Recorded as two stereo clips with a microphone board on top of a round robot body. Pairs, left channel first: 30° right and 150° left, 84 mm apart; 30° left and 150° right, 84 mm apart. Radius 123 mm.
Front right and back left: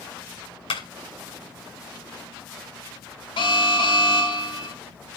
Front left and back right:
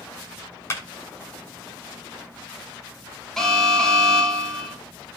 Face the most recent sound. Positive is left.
turn(degrees=-55)